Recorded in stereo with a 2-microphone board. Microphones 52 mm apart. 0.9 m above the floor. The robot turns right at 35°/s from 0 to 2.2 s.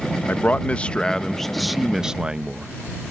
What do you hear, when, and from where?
0.3 s a man speaking: 130° left; by 2.7 s 165° right